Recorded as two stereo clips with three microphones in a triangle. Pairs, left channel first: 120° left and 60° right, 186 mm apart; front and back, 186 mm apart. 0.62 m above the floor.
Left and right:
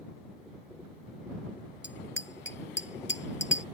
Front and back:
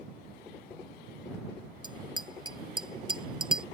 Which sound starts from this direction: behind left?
A bicycle bell, at 1.8 s.